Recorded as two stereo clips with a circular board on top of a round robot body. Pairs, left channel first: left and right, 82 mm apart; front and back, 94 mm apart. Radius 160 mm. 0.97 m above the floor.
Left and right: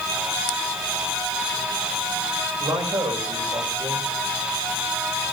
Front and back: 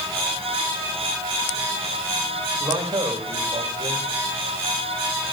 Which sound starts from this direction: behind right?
A man speaking, at 2.6 s.